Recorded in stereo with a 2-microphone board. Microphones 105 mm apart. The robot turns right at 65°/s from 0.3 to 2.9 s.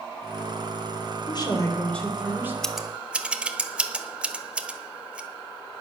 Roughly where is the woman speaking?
Behind left.